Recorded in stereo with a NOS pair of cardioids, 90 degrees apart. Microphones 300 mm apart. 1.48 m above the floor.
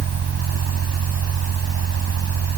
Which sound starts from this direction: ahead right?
A fan, at 0.0 s.